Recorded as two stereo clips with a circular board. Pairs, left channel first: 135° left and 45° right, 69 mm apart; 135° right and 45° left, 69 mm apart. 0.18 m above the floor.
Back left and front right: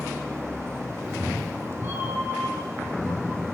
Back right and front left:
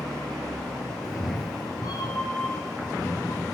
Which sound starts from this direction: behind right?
A cat meowing, at 1.0 s.